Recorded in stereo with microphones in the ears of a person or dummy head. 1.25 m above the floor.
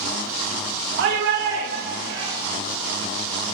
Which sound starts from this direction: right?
A shout, at 1.0 s.